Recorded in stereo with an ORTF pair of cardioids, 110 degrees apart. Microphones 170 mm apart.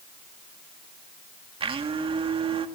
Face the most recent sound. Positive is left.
turn(degrees=-35)